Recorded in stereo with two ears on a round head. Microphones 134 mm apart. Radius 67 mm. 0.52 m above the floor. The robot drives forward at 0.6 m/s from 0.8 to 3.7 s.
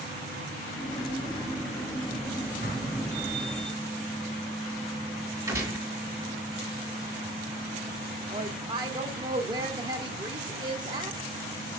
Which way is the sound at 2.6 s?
70° right (ahead or behind).